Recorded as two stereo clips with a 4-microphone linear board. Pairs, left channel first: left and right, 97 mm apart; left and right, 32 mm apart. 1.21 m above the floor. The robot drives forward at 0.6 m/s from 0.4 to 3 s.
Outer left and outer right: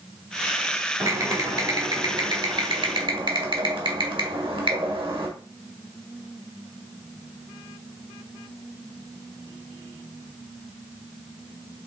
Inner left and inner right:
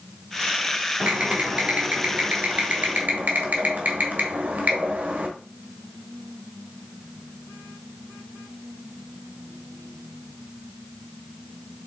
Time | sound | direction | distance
1.0 | typing on a keyboard | 40° right (ahead or behind) | 2.5 m